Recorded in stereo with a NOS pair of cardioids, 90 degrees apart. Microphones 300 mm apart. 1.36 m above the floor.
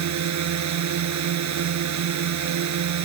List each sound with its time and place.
0.0 s a drone: 65° right